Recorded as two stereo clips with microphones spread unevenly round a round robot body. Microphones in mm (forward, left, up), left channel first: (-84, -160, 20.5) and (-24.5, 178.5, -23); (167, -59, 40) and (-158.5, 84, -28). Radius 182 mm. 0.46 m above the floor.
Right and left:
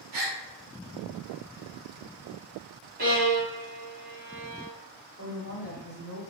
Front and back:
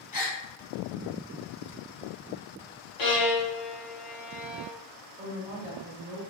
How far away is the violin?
About 1.3 m.